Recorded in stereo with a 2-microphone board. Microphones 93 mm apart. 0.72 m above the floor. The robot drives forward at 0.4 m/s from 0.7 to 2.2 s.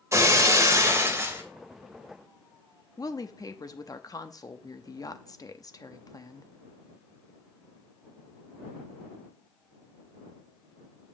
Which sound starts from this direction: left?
A woman speaking, at 3.0 s.